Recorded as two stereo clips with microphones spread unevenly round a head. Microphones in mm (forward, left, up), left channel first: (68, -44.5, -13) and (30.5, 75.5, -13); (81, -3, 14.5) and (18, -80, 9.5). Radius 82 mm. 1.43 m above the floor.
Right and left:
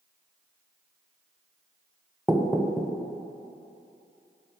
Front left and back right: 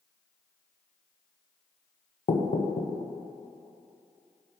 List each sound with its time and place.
2.3 s knocking: 20° left, 0.6 m